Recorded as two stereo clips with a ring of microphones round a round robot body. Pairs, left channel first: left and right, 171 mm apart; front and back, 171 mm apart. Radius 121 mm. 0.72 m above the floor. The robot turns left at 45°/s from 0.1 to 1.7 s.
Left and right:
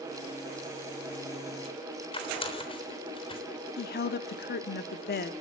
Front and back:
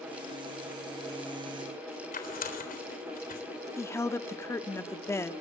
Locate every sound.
2.1 s tearing paper: 35° left, 3.5 m
3.8 s a woman speaking: 75° left, 1.3 m